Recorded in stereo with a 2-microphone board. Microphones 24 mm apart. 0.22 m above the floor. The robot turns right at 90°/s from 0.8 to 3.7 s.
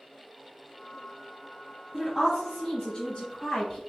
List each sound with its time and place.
1.9 s a woman speaking: 30° right, 1.1 m; by 3.8 s 130° left, 1.1 m